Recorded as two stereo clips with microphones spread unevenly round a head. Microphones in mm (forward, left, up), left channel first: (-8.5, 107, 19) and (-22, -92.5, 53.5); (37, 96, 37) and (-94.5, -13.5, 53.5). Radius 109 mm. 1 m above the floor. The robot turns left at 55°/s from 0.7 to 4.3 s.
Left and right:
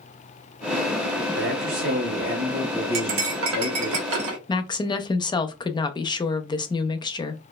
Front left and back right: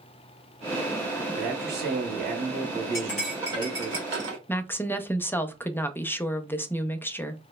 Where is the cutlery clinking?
35° right, 0.8 m; by 4.4 s 110° right, 0.8 m.